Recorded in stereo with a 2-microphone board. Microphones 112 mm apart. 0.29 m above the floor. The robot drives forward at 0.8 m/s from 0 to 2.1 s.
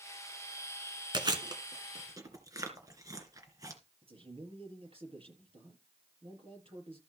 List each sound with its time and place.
1.1 s chewing: 40° right (ahead or behind), 2 m; by 3.8 s 30° right (ahead or behind), 2.5 m
4.0 s a man speaking: 60° right (ahead or behind), 6 m